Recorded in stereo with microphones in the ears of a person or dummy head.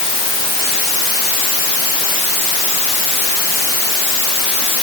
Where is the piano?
No piano in this recording.